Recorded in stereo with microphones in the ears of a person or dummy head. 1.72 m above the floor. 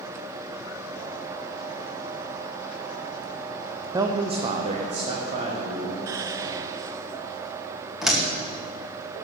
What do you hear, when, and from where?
3.9 s a man speaking: 15° right (ahead or behind), 0.6 m; by 6.0 s 40° right (ahead or behind), 1.9 m
6.1 s whispering: 25° right (ahead or behind), 0.8 m
8.0 s a door slam: centre (ahead or behind), 2 m